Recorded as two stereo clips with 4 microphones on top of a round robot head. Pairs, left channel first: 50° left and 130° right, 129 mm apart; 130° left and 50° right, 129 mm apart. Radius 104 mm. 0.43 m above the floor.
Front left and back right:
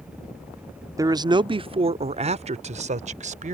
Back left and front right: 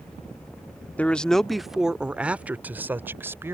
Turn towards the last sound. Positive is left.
turn(degrees=-120)